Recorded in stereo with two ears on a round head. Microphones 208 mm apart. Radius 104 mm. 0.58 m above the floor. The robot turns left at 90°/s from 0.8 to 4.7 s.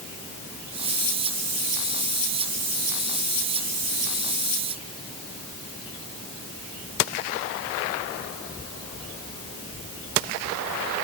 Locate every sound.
Only background noise.